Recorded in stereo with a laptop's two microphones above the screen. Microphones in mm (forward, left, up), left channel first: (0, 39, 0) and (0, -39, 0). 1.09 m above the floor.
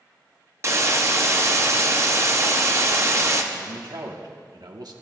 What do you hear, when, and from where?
0.6 s a hiss: 40° right (ahead or behind), 0.6 m
3.5 s a man speaking: 60° right (ahead or behind), 1.1 m